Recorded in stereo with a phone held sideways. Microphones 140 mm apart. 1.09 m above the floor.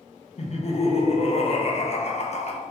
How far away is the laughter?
About 0.5 m.